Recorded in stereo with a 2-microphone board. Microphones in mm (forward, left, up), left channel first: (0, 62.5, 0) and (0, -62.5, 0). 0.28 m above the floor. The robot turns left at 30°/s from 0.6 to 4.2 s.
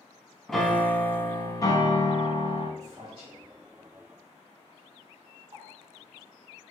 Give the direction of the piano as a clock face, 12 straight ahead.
6 o'clock.